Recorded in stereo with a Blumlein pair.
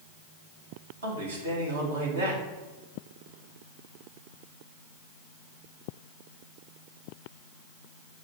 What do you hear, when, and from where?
1.0 s a man speaking: 70° right, 1.9 m